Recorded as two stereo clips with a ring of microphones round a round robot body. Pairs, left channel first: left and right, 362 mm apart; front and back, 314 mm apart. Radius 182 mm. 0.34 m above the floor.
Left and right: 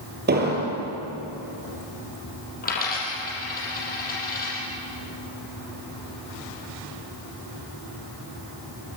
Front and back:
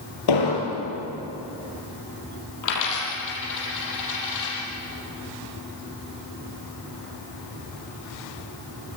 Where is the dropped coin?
25° left, 6.5 m.